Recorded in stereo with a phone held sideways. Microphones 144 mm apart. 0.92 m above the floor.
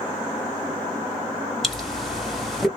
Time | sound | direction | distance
1.6 | a pop | centre (ahead or behind) | 0.8 m